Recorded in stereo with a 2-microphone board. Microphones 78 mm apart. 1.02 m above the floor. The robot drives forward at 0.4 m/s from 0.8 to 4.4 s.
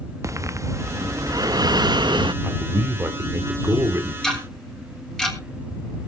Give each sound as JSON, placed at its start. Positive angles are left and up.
{"t": 0.2, "sound": "breathing", "side_deg": -40, "distance_m": 1.0}
{"t": 2.4, "sound": "a man speaking", "side_deg": -35, "distance_m": 3.0}
{"t": 4.2, "sound": "ticking", "side_deg": 5, "distance_m": 4.0}